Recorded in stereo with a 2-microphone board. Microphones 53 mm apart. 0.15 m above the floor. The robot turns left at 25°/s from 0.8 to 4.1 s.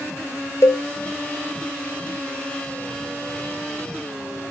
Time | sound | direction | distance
0.6 | a cowbell | 65° left (ahead or behind) | 1.2 m